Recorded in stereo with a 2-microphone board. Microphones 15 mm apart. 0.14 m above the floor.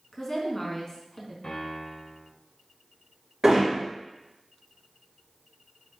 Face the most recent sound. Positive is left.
turn(degrees=-50)  # may be behind; listen again after turning